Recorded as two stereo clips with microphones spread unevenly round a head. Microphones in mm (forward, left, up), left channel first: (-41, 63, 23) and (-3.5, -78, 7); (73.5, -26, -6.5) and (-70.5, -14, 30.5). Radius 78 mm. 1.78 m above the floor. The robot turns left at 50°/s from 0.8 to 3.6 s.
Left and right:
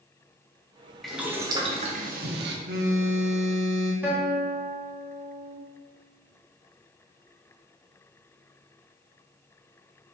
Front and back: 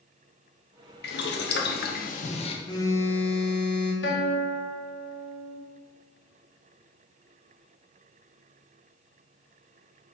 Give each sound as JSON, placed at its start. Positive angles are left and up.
{"t": 1.0, "sound": "boiling", "azimuth_deg": 15, "distance_m": 1.2}
{"t": 2.6, "sound": "a phone buzzing", "azimuth_deg": -70, "distance_m": 1.9}
{"t": 4.0, "sound": "a guitar", "azimuth_deg": 5, "distance_m": 3.0}